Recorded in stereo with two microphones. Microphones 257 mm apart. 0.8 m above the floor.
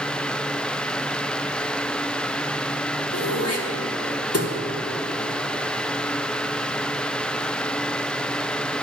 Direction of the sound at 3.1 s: 70° left (ahead or behind).